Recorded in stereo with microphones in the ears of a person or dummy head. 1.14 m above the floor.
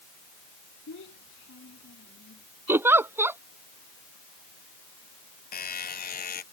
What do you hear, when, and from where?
0.9 s a child speaking: 55° left (ahead or behind)
2.7 s a giggle: 5° right (ahead or behind)
5.5 s a buzzer: 50° left (ahead or behind)